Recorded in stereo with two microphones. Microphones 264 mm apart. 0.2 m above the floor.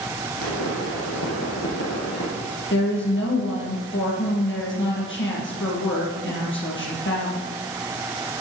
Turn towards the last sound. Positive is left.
turn(degrees=45)  # may be behind; listen again after turning